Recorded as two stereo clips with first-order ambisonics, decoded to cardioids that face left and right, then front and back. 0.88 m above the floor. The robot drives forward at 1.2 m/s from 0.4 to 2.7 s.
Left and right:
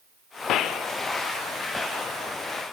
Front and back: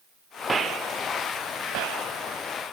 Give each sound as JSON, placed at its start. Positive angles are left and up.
{"t": 0.5, "sound": "a gunshot", "azimuth_deg": 100, "distance_m": 0.6}